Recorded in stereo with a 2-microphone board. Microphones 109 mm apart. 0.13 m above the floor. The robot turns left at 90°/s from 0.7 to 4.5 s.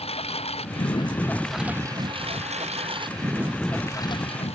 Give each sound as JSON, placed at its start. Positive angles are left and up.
{"t": 0.0, "sound": "a lawn mower", "side_deg": 65}